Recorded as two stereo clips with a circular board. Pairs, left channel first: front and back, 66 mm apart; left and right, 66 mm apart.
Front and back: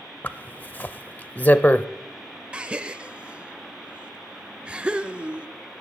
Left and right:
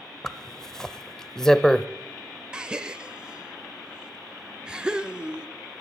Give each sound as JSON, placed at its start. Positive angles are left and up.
{"t": 0.2, "sound": "a zipper", "azimuth_deg": 15, "distance_m": 0.5}
{"t": 2.5, "sound": "a gasp", "azimuth_deg": -140, "distance_m": 0.6}